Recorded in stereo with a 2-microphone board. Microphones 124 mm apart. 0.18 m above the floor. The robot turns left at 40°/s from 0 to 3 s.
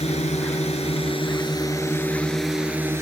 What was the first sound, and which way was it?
A drone, 55° left (ahead or behind).